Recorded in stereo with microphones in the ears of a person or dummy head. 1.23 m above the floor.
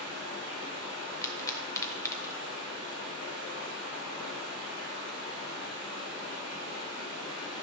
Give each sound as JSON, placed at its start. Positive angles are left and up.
{"t": 0.0, "sound": "running water", "side_deg": -25, "distance_m": 2.5}
{"t": 1.2, "sound": "a pop", "side_deg": 20, "distance_m": 0.9}